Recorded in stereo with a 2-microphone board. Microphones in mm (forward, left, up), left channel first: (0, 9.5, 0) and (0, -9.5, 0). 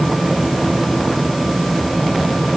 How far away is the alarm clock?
No alarm clock in this recording.